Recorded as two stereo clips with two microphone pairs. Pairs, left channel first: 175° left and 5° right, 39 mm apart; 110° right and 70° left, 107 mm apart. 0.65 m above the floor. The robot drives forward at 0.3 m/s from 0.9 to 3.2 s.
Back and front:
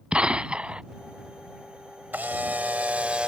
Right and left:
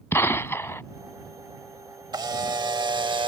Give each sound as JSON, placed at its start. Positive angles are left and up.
{"t": 0.1, "sound": "a gunshot", "azimuth_deg": -55}
{"t": 2.1, "sound": "a camera shutter", "azimuth_deg": 25}